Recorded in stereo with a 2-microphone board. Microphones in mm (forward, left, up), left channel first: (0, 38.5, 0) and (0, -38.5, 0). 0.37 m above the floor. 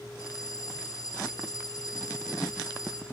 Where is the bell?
50° left (ahead or behind), 4 m.